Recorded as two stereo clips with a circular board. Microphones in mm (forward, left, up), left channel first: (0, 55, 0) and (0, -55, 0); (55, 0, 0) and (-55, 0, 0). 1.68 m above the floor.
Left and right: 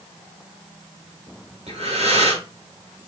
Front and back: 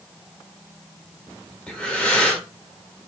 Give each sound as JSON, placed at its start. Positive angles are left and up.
{"t": 1.7, "sound": "breathing", "azimuth_deg": -85, "distance_m": 1.9}